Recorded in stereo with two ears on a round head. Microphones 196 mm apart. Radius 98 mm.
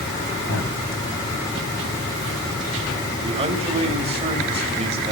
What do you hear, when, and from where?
0.5 s a man speaking: 60° left (ahead or behind), 7.5 m
3.2 s a man speaking: 30° right (ahead or behind), 2 m